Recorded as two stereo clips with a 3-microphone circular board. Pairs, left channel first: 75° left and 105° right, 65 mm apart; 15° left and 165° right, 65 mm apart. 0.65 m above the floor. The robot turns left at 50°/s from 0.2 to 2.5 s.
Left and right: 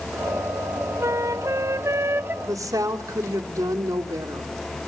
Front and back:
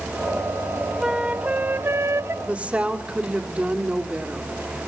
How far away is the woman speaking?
About 2 m.